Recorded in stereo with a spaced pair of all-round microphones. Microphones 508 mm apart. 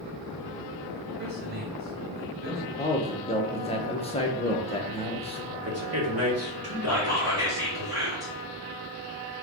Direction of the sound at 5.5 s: 30° right (ahead or behind).